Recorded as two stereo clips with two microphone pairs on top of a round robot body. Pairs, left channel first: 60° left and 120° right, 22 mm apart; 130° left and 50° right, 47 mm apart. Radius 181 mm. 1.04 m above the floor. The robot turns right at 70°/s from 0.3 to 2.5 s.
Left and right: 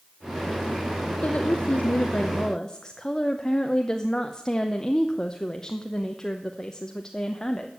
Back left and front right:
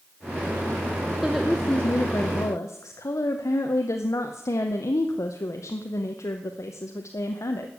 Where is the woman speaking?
30° left, 0.9 m; by 7.7 s 120° left, 0.9 m.